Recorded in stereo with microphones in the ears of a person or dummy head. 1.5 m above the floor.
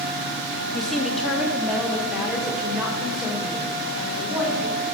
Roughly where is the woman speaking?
Centre.